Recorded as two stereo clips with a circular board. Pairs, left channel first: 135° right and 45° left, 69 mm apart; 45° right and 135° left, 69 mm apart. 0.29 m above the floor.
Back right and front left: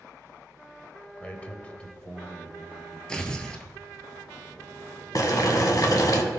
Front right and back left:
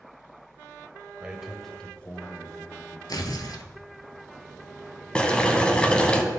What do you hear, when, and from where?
1.2 s a man speaking: 175° right, 0.9 m; by 3.0 s 55° right, 1.4 m
3.1 s tearing paper: 60° right, 0.8 m
5.2 s boiling: 115° right, 1.0 m